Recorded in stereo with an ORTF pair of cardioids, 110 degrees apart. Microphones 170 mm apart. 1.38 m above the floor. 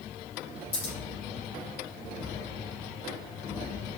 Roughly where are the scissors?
Ahead left.